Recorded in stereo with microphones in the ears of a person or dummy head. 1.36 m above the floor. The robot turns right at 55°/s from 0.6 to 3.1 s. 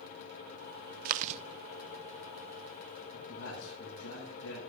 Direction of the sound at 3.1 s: 80° left.